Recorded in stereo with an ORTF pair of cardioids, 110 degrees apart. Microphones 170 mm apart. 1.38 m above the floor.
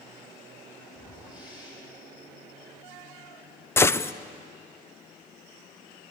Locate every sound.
0.9 s a whoosh: 25° left, 6.5 m
3.8 s a gunshot: 15° left, 0.7 m